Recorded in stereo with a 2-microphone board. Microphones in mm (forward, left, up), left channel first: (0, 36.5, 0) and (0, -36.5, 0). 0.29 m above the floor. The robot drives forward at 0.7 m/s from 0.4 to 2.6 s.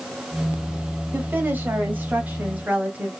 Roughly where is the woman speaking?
Right.